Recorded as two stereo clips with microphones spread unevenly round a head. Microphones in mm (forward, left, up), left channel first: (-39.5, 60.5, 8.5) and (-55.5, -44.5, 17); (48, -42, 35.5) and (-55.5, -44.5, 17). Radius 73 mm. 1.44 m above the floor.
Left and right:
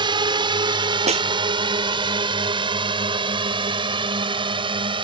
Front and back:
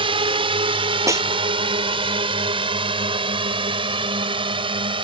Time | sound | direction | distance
0.0 | a drone | 145° right | ?
1.1 | a snare drum | 115° right | ?